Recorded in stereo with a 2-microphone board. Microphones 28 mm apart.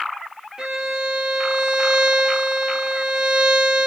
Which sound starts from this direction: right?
A violin, at 0.6 s.